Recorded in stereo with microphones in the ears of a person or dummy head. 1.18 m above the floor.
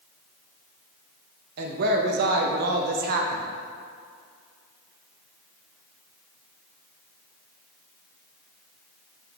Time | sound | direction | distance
1.6 | a woman speaking | 55° right (ahead or behind) | 0.8 m